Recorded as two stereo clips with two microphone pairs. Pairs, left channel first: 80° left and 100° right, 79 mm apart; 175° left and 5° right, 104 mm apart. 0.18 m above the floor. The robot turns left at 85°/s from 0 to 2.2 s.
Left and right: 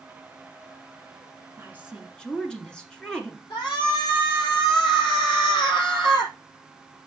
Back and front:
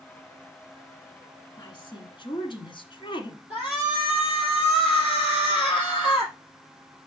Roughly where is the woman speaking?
Behind right.